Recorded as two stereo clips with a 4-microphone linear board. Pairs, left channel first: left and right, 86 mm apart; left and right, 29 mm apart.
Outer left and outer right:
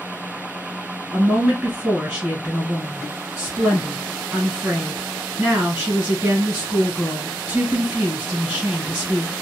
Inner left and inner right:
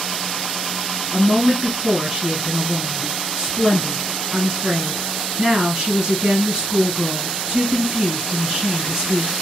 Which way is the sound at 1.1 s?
20° right (ahead or behind).